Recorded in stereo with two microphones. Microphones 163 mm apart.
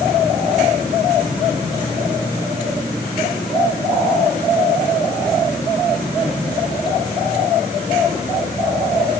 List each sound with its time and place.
Only background noise.